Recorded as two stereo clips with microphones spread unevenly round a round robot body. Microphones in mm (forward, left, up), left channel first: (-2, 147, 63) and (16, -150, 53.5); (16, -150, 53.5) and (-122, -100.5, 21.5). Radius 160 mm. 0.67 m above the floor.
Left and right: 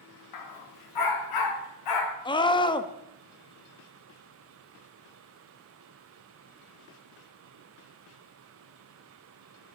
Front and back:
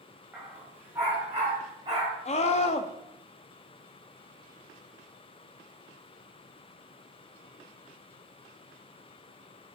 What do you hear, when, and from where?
0.3 s a dog barking: 75° left, 1.5 m; by 2.1 s 85° left, 2.5 m
2.2 s a scream: 25° left, 0.9 m